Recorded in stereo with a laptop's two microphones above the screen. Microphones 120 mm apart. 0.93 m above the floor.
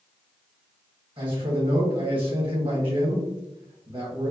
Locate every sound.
1.2 s a man speaking: 45° right (ahead or behind), 1.2 m